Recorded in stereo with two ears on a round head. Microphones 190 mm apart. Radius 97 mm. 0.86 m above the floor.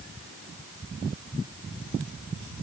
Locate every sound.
Only background noise.